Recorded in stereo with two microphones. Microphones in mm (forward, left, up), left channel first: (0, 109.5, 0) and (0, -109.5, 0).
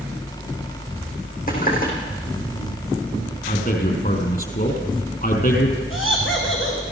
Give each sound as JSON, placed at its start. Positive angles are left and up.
{"t": 1.5, "sound": "a running tap", "side_deg": 40, "distance_m": 4.5}
{"t": 3.5, "sound": "a man speaking", "side_deg": 45, "distance_m": 4.0}
{"t": 5.9, "sound": "laughter", "side_deg": 65, "distance_m": 7.5}